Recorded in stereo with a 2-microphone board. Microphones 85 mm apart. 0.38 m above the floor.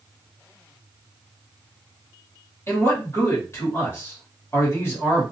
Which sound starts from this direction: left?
A man speaking, at 2.7 s.